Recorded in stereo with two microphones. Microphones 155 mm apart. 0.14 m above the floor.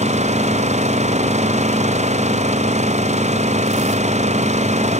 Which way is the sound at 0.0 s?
45° right (ahead or behind).